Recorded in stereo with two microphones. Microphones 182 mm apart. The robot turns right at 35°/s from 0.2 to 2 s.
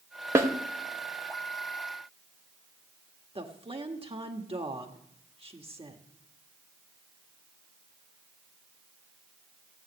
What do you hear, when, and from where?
0.3 s a snare drum: 15° right (ahead or behind), 1.3 m
3.4 s a woman speaking: 35° right (ahead or behind), 1.6 m